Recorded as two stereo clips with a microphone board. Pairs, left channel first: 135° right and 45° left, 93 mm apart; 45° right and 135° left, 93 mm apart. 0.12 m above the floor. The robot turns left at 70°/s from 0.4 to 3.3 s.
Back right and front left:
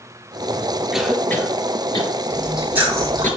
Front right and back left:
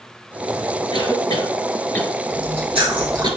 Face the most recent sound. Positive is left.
turn(degrees=80)